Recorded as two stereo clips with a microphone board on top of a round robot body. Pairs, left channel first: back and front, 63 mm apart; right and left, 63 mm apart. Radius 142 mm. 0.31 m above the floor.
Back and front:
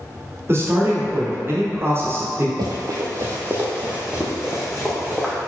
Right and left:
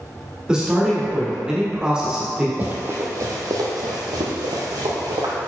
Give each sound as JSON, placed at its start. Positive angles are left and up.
{"t": 0.5, "sound": "a man speaking", "azimuth_deg": 20, "distance_m": 1.4}
{"t": 2.6, "sound": "running footsteps", "azimuth_deg": 20, "distance_m": 0.8}